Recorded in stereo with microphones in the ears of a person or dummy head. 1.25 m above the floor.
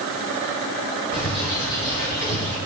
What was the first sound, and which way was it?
A bird, 20° left (ahead or behind).